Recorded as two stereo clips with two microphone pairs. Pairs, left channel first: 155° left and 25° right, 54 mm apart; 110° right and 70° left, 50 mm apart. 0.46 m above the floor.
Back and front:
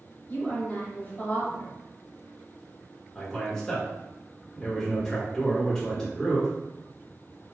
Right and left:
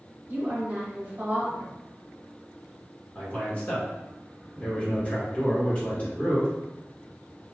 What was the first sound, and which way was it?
A woman speaking, 130° left.